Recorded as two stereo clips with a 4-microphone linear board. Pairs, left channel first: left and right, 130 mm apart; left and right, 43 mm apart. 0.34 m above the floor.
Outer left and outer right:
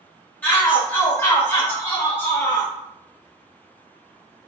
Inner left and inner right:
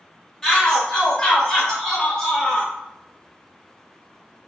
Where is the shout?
15° left (ahead or behind), 1.1 m.